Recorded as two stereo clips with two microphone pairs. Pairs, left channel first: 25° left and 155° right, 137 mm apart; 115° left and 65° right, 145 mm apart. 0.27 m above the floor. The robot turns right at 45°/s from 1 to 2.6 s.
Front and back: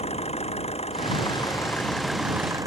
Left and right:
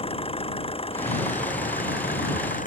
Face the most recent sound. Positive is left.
turn(degrees=140)